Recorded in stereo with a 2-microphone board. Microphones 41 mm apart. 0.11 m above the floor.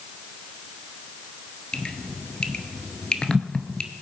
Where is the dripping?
20° left (ahead or behind), 1.0 m.